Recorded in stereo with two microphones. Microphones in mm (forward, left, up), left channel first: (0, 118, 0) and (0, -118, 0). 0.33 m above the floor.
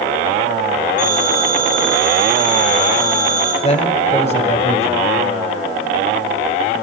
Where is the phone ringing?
85° right, 6.5 m.